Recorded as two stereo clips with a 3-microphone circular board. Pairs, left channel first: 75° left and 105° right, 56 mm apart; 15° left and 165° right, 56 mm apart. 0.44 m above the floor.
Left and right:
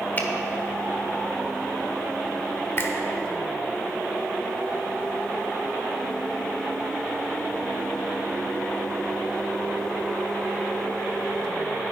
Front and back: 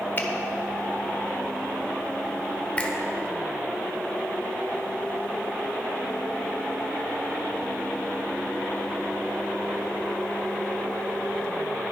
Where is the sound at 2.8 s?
70° left, 1.3 m.